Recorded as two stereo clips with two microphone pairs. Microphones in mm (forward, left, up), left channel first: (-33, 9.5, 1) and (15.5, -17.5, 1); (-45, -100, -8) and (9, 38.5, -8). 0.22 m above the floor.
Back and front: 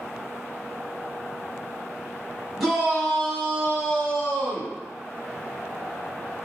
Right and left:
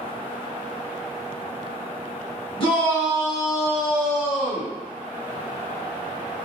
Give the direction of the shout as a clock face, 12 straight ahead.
4 o'clock.